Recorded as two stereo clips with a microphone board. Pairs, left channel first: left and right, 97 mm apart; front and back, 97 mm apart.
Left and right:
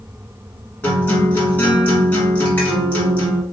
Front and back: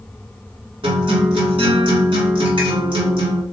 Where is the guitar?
160° left, 1.6 m.